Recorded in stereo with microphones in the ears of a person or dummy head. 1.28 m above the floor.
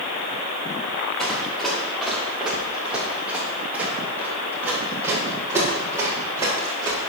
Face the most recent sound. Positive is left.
turn(degrees=-15)  # may be behind; listen again after turning